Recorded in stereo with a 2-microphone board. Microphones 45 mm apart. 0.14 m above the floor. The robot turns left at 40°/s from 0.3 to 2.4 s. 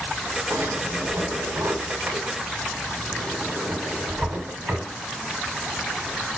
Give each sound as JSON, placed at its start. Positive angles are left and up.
{"t": 0.5, "sound": "a drawer", "side_deg": -85, "distance_m": 6.0}